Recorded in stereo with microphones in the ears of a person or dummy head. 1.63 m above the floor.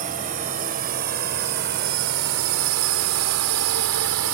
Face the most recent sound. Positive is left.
turn(degrees=-70)  # may be behind; listen again after turning